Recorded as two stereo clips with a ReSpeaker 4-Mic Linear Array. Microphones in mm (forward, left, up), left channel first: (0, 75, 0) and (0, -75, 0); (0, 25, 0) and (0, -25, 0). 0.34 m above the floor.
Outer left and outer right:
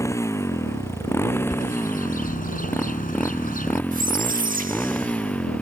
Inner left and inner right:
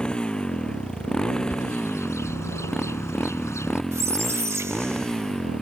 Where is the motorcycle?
20° left (ahead or behind); by 5.6 s 10° left (ahead or behind).